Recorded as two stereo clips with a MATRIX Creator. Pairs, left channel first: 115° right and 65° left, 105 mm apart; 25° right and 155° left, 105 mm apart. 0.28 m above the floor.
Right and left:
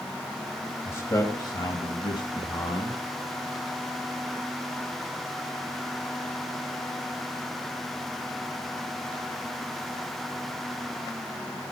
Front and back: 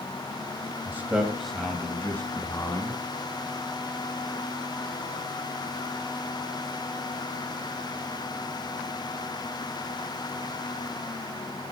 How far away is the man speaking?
About 1.1 m.